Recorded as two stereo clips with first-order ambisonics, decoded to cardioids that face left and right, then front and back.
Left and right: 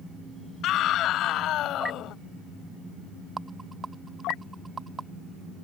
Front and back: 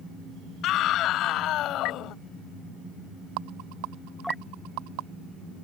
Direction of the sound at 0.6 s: 45° left.